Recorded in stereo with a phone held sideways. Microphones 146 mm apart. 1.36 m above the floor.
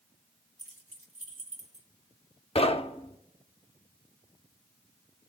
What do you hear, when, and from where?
0.6 s keys jangling: 50° right (ahead or behind), 1.5 m
2.5 s knocking: 40° left (ahead or behind), 0.7 m